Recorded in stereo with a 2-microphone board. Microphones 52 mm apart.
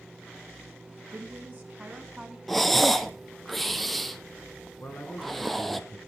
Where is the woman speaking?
35° right (ahead or behind), 1.4 m; by 2.4 s 10° right (ahead or behind), 1.3 m.